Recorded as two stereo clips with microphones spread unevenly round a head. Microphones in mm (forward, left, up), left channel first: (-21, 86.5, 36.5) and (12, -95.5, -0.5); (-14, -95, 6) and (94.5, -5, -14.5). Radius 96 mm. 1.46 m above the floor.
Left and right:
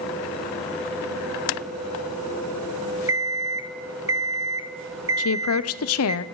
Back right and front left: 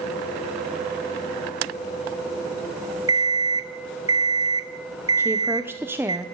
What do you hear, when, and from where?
3.1 s an alarm clock: straight ahead, 0.7 m
5.2 s a woman speaking: 115° left, 0.7 m